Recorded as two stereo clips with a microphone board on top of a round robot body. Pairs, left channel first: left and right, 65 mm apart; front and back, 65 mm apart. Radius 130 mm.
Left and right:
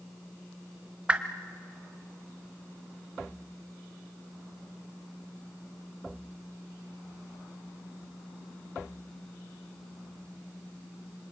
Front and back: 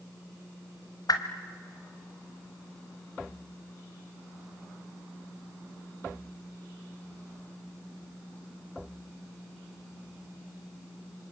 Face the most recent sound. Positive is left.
turn(degrees=-20)